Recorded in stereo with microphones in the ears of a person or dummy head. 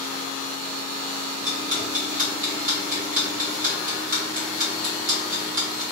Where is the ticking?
35° right (ahead or behind), 0.7 m.